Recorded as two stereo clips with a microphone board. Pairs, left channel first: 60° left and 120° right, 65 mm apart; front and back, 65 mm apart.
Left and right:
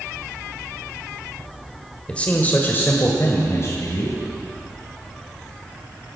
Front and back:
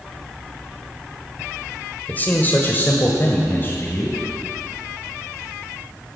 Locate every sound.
2.1 s a man speaking: 10° left, 1.5 m; by 4.2 s 45° left, 2.5 m